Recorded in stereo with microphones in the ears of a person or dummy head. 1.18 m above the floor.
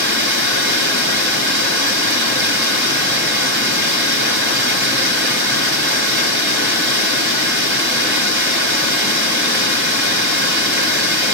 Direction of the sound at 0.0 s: 60° right (ahead or behind).